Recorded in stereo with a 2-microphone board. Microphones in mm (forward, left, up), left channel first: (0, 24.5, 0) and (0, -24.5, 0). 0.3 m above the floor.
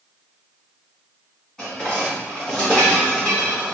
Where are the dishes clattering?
15° left (ahead or behind), 1.8 m.